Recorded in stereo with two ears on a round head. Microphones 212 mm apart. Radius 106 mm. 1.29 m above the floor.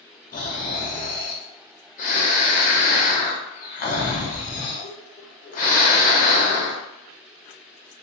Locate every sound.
0.3 s snoring: 30° left (ahead or behind), 0.6 m